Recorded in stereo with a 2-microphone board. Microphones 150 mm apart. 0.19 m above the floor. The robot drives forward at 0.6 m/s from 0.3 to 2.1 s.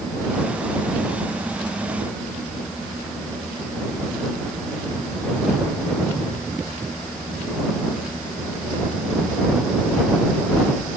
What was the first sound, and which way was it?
Only background noise.